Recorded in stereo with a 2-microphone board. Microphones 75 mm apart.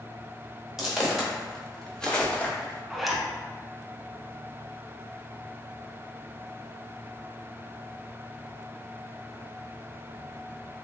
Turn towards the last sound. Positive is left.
turn(degrees=-5)  # may be behind; listen again after turning